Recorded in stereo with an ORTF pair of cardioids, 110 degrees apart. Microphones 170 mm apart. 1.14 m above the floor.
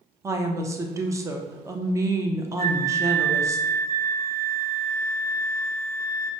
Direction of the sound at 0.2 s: 20° right.